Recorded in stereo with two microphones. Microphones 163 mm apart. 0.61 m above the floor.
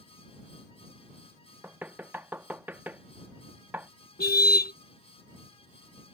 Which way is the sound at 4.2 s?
75° left (ahead or behind).